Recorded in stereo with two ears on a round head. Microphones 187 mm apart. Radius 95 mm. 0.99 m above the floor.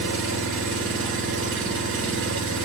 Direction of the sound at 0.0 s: 70° right (ahead or behind).